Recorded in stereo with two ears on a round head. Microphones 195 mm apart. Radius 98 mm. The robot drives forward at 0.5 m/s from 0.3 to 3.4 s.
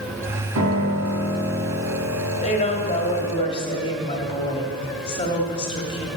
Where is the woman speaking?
30° left (ahead or behind), 1.9 m; by 6.1 s 25° left (ahead or behind), 2.5 m.